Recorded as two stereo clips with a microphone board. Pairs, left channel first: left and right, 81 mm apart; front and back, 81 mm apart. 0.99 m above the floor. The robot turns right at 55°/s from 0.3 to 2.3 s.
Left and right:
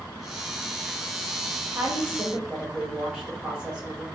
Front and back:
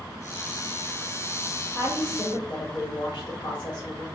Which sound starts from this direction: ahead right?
A woman speaking, at 1.7 s.